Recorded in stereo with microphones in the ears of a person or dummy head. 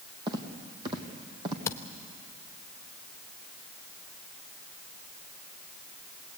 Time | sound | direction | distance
0.3 | footsteps | 25° right (ahead or behind) | 3 m
1.7 | a camera shutter | 15° left (ahead or behind) | 1.1 m